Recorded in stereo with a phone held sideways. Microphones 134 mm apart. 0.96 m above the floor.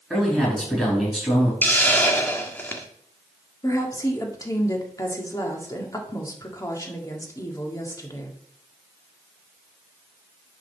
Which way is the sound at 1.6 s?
15° left (ahead or behind).